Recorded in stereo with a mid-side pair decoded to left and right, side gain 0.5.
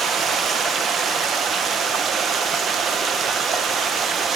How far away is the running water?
About 1.4 m.